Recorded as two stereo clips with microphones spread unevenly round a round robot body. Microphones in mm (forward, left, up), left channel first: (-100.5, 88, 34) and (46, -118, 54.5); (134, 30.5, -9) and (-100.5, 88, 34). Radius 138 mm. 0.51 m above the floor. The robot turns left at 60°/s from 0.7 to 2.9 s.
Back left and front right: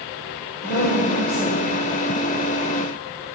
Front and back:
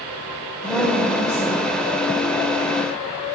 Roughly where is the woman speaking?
Left.